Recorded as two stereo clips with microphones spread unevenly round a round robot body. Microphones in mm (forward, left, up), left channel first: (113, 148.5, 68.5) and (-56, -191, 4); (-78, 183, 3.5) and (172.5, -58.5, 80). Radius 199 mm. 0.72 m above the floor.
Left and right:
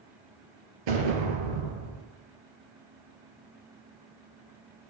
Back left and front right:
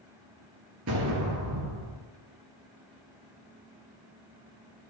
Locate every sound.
0.9 s an explosion: 100° right, 3 m